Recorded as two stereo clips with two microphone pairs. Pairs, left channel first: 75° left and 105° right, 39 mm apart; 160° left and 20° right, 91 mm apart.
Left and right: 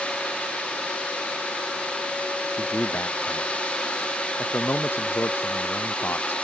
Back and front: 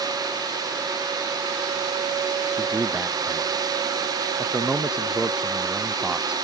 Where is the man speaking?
65° left.